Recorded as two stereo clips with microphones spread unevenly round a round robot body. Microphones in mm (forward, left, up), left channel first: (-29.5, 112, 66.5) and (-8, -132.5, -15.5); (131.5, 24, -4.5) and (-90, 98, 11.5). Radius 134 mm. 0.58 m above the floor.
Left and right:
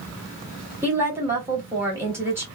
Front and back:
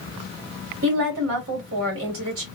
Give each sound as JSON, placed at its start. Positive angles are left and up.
{"t": 0.8, "sound": "a woman speaking", "azimuth_deg": -160, "distance_m": 2.5}